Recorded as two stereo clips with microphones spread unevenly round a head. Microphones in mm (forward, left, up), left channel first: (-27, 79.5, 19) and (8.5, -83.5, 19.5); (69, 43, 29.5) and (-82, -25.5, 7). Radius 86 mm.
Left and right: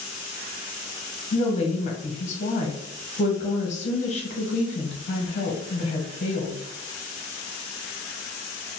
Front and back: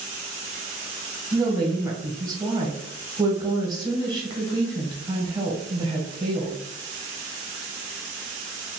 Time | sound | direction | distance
1.3 | a woman speaking | 135° left | 0.9 m